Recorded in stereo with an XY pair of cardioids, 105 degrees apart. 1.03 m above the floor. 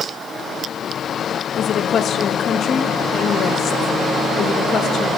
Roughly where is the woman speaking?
Ahead left.